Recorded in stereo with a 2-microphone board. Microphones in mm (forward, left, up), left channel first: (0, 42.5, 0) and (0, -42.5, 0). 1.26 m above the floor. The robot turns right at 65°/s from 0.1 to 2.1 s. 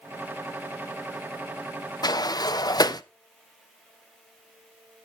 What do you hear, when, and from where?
2.0 s a sliding door: 50° left (ahead or behind), 0.6 m